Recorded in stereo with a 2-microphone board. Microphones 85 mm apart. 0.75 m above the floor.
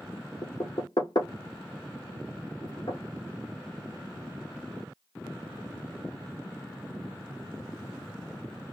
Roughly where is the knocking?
Left.